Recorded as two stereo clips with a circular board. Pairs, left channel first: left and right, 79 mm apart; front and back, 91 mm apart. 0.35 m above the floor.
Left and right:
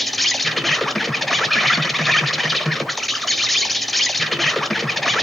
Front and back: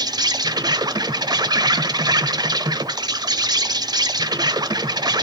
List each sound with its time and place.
0.0 s an insect: 175° left, 0.8 m